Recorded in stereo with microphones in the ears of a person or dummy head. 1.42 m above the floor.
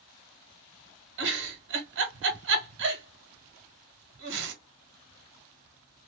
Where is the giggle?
70° right (ahead or behind), 1.3 m.